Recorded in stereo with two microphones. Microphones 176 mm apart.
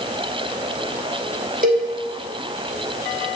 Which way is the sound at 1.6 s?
50° right (ahead or behind).